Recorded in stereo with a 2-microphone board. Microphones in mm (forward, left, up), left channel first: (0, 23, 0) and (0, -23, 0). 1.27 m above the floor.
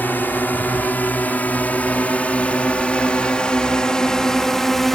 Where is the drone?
45° left (ahead or behind); by 5.0 s 5° left (ahead or behind).